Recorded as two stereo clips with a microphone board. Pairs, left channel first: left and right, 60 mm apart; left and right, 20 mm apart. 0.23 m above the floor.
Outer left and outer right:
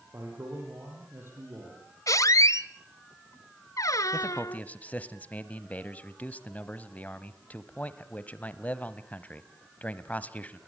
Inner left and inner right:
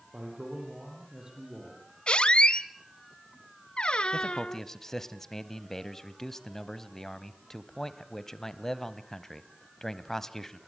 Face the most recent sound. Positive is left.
turn(degrees=25)  # may be behind; listen again after turning